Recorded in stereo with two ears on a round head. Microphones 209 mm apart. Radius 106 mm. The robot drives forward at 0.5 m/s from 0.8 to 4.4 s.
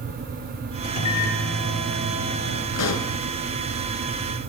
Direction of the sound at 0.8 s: 65° left (ahead or behind).